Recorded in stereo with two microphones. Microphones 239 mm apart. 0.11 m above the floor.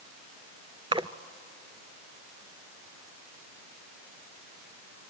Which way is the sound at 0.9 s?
20° right (ahead or behind).